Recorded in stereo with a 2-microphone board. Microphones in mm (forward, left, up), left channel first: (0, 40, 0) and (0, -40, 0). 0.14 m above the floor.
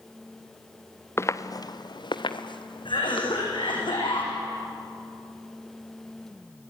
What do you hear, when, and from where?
1.2 s footsteps: 30° left (ahead or behind), 1.0 m; by 3.6 s 85° left, 3.5 m
2.9 s a cough: 75° left (ahead or behind), 7.5 m